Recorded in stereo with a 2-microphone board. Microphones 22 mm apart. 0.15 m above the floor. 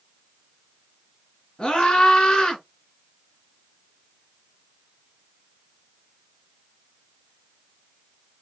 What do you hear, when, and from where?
1.6 s a scream: 40° left (ahead or behind), 2.5 m